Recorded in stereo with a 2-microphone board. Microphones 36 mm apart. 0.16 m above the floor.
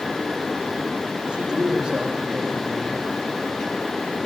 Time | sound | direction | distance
1.3 | a man speaking | 40° right (ahead or behind) | 7 m